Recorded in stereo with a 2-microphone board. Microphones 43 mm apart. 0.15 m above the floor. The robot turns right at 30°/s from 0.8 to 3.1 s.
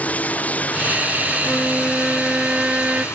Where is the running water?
30° left; by 3.1 s 100° left.